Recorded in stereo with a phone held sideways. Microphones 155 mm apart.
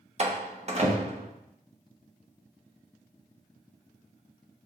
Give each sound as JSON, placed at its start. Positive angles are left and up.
{"t": 0.2, "sound": "a door slam", "side_deg": -45, "distance_m": 0.6}